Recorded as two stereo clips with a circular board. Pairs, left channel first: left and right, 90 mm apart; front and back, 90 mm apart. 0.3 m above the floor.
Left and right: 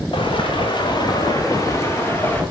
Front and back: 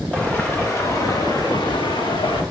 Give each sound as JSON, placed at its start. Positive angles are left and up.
{"t": 0.1, "sound": "footsteps", "azimuth_deg": 75, "distance_m": 3.0}